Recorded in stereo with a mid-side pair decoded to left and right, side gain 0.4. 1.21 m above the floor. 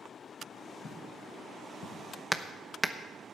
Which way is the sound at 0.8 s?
50° left.